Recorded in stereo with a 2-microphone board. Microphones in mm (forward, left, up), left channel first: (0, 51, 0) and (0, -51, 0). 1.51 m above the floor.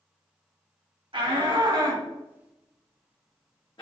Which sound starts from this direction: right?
A shout, at 1.1 s.